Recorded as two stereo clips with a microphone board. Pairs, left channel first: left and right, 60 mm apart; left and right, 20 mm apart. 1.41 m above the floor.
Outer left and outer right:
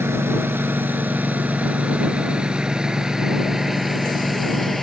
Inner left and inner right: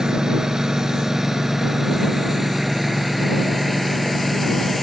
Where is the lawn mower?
40° right (ahead or behind); by 4.8 s 5° left (ahead or behind).